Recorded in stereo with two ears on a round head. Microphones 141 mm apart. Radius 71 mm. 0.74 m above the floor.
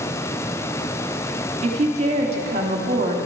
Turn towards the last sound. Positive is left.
turn(degrees=-40)  # may be behind; listen again after turning